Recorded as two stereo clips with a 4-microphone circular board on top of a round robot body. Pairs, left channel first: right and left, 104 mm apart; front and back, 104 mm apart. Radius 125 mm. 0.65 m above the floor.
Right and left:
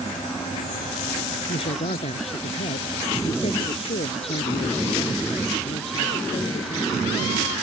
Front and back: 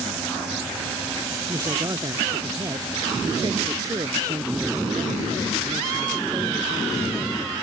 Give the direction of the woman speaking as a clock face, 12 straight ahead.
4 o'clock.